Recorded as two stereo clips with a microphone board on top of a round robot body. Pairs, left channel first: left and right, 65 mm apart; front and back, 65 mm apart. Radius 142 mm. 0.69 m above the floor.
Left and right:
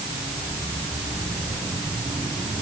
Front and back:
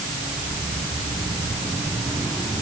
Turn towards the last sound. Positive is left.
No sound to turn to.